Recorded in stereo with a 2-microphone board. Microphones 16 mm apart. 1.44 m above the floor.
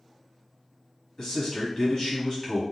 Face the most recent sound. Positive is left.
turn(degrees=45)  # may be behind; listen again after turning